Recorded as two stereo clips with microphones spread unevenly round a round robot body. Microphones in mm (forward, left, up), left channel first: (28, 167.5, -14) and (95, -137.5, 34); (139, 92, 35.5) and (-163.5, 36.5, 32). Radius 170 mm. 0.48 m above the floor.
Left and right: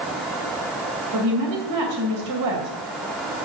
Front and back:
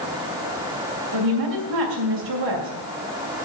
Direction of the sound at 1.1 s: 120° right.